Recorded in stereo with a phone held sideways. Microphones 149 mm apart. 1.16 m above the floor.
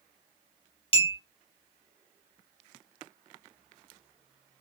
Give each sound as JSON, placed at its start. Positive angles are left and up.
{"t": 0.9, "sound": "a clink", "side_deg": 40, "distance_m": 0.6}